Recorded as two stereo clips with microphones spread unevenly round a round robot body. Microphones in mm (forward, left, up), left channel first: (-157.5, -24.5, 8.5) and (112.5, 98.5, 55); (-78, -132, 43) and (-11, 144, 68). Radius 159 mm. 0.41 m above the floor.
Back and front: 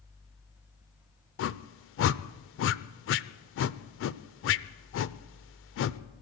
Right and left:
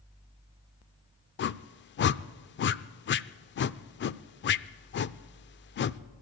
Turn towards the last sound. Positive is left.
turn(degrees=-140)